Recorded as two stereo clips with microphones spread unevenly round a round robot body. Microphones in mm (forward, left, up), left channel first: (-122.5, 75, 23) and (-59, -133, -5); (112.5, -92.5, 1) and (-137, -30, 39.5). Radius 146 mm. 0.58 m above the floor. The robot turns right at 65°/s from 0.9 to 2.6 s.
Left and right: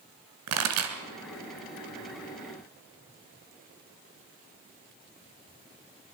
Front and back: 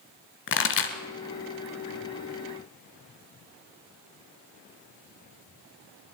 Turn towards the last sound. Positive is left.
turn(degrees=55)